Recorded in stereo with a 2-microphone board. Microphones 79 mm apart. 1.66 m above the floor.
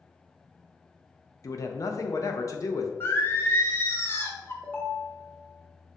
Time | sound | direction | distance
1.4 | a man speaking | 45° left (ahead or behind) | 0.5 m
3.0 | singing | 30° left (ahead or behind) | 0.5 m
4.6 | a ringtone | 20° left (ahead or behind) | 0.8 m